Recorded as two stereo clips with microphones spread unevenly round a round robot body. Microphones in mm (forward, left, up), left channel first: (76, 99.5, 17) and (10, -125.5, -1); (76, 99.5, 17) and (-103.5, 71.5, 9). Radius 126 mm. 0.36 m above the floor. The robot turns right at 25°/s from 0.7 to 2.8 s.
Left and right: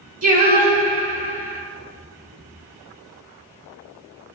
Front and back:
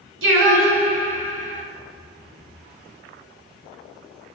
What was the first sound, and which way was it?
Singing, 165° right.